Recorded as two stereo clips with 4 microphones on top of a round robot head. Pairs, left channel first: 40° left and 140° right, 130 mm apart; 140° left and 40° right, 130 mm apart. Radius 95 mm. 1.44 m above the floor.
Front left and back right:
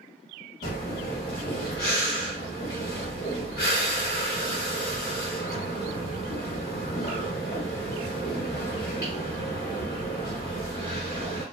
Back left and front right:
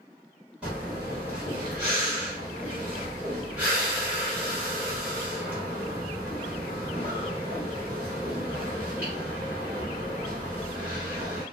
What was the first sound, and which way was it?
Breathing, 40° left.